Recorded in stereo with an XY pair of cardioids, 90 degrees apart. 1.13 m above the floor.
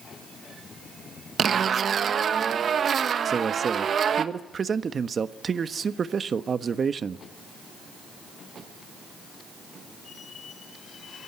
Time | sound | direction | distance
1.4 | a zipper | 60° right | 1.3 m
3.2 | a man speaking | 45° right | 1.2 m